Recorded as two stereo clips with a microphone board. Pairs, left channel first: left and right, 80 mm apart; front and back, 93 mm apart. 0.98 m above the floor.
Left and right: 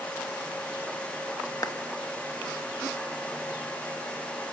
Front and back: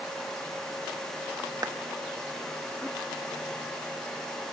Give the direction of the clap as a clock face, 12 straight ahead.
8 o'clock.